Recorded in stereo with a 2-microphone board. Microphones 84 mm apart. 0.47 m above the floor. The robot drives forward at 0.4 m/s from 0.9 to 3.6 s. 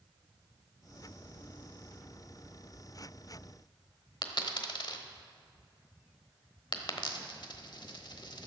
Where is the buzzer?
No buzzer in this recording.